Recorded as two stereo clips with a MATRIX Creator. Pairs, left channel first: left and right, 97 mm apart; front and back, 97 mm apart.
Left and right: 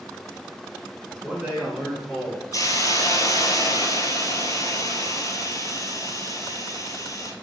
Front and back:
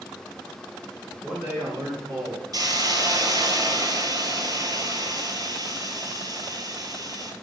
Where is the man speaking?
130° right, 1.7 m; by 2.4 s 165° left, 2.5 m.